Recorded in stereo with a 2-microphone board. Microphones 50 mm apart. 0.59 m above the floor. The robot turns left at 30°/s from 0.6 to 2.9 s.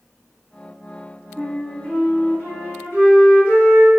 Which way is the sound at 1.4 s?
155° left.